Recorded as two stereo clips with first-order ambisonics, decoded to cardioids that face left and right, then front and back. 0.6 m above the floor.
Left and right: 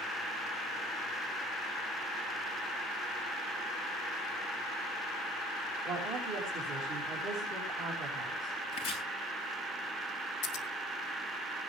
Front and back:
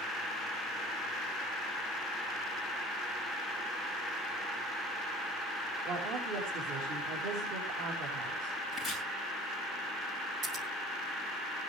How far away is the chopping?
About 7.5 m.